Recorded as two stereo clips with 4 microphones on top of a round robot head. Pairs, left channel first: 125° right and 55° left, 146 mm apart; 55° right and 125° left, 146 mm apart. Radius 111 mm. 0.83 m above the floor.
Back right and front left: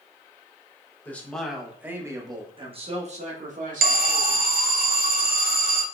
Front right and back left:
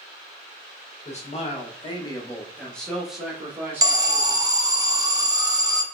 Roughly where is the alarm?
Ahead left.